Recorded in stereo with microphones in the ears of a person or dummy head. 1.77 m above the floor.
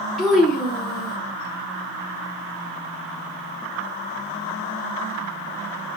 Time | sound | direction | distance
0.2 | a child speaking | centre (ahead or behind) | 0.8 m